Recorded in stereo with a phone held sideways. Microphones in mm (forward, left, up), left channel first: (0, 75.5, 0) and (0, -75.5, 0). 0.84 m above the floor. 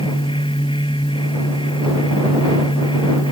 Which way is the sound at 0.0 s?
35° left (ahead or behind).